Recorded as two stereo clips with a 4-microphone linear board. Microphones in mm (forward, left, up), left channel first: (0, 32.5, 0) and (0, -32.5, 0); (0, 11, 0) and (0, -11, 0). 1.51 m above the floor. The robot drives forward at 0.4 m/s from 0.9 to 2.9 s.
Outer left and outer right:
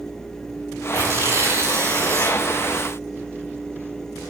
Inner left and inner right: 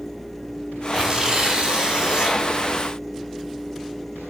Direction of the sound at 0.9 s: 35° right (ahead or behind).